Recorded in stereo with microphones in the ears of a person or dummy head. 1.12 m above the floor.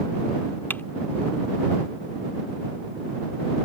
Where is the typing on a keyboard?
10° left (ahead or behind).